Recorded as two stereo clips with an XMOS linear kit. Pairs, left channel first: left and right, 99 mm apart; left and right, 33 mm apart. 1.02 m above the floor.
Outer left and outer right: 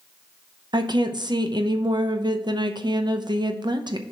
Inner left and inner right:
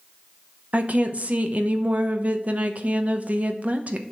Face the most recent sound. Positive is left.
turn(degrees=-45)  # may be behind; listen again after turning